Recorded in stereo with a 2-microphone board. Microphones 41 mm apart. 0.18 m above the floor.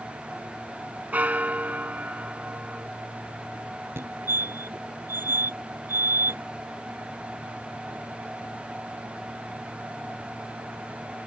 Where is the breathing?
No breathing in this recording.